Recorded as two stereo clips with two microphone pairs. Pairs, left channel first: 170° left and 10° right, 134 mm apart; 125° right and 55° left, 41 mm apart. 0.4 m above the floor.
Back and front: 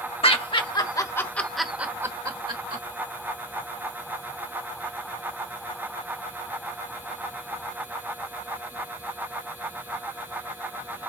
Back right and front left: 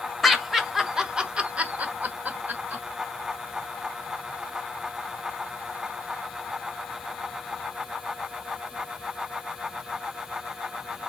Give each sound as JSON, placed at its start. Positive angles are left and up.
{"t": 0.2, "sound": "laughter", "azimuth_deg": 145, "distance_m": 1.6}